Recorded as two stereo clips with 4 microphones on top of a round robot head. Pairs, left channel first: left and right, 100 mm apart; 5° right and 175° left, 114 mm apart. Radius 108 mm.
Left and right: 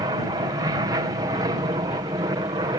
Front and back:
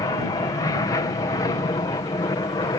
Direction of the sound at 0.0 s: 55° right.